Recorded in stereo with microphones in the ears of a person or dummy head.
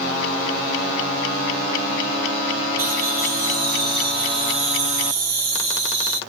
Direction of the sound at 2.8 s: 15° right (ahead or behind).